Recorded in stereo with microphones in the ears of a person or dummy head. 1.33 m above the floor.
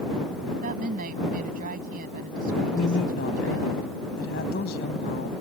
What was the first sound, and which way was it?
A woman speaking, 50° right (ahead or behind).